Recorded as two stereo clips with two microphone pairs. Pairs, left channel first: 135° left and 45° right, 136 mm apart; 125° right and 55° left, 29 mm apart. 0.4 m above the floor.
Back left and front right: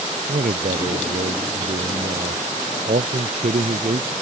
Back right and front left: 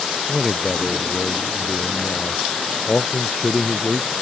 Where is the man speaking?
50° right; by 4.1 s 60° right.